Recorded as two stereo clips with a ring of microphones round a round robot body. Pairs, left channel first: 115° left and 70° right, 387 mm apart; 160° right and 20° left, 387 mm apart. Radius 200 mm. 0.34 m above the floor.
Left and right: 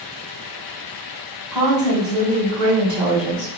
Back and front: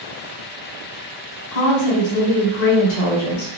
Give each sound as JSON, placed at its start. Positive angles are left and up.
{"t": 1.5, "sound": "a woman speaking", "azimuth_deg": -155, "distance_m": 1.4}